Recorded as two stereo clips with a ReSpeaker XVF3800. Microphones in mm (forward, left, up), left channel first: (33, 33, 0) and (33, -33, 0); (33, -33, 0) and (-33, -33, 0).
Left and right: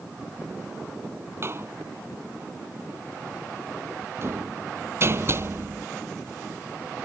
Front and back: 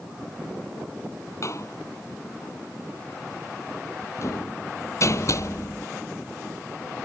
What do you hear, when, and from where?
1.4 s a door slam: 40° right